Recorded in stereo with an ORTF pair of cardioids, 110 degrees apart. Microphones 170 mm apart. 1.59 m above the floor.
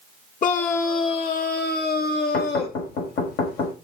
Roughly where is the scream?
Ahead left.